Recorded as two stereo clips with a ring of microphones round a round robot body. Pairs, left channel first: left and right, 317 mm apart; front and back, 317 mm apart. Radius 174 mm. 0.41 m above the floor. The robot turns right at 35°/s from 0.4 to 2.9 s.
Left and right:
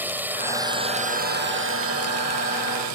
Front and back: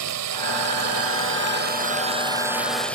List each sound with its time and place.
0.0 s a drone: 175° right; by 3.0 s 85° right